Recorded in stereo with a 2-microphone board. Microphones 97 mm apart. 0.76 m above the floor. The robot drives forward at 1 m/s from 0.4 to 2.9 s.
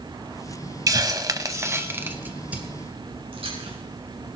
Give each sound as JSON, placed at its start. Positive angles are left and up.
{"t": 0.9, "sound": "a hiss", "side_deg": -40, "distance_m": 0.7}
{"t": 3.3, "sound": "chewing", "side_deg": -75, "distance_m": 5.5}